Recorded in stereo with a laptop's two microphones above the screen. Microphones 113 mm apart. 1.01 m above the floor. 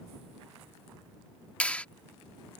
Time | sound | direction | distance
1.6 | a clap | 10° left (ahead or behind) | ?